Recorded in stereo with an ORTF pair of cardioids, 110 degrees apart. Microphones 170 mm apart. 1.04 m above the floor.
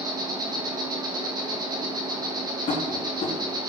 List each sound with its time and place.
0.0 s an insect: 25° right, 1.6 m
2.7 s tapping: 45° left, 3 m